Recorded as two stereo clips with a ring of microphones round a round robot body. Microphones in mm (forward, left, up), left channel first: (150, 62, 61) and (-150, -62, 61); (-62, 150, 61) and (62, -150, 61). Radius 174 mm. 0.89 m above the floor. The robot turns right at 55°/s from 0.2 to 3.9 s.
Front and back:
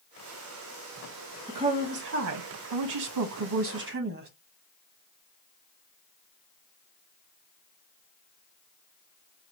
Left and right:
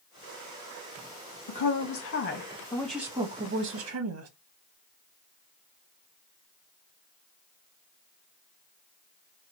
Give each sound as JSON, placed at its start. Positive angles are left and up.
{"t": 1.5, "sound": "a woman speaking", "azimuth_deg": 125, "distance_m": 1.0}